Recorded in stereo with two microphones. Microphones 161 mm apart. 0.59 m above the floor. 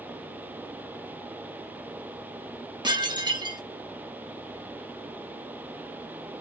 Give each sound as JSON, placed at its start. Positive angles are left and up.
{"t": 2.8, "sound": "dishes clattering", "side_deg": -25, "distance_m": 0.6}